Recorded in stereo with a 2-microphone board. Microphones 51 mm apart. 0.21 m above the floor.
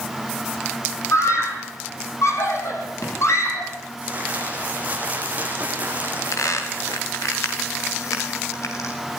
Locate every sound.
1.1 s a scream: 65° left (ahead or behind), 7.5 m; by 3.7 s 60° left (ahead or behind), 9.5 m
4.0 s crumpling: 30° right (ahead or behind), 6.5 m
6.0 s a squeak: 80° left, 6 m